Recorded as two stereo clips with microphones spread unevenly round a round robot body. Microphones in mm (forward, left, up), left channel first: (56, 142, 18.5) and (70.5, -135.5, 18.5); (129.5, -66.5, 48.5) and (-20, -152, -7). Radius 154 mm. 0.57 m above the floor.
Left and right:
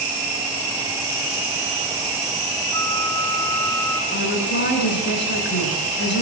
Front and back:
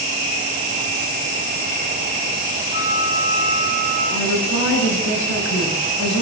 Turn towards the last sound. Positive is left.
turn(degrees=40)